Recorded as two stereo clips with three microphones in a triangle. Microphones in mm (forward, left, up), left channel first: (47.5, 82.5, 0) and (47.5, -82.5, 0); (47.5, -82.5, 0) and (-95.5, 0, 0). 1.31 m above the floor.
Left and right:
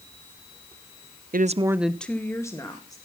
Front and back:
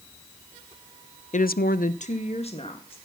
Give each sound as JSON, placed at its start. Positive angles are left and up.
{"t": 1.3, "sound": "a woman speaking", "azimuth_deg": -70, "distance_m": 0.6}